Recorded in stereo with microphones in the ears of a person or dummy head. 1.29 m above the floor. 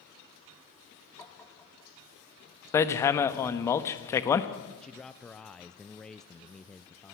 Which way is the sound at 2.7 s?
15° left (ahead or behind).